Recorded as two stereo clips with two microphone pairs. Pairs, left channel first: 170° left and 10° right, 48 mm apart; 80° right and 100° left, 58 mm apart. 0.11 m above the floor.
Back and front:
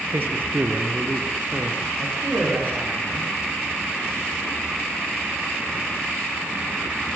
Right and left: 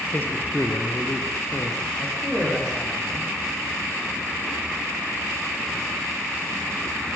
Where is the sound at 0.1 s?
30° right, 3 m; by 1.9 s 55° right, 4 m.